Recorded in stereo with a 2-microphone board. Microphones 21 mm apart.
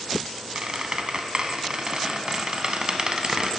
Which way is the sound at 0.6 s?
45° right (ahead or behind).